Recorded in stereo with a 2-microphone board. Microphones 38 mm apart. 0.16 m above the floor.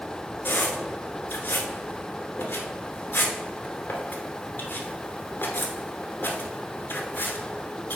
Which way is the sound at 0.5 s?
55° left (ahead or behind).